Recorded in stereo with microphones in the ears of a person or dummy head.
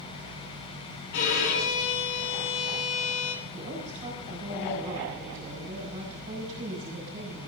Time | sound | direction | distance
1.1 | a violin | 65° left (ahead or behind) | 3 m
3.5 | a woman speaking | 35° right (ahead or behind) | 6 m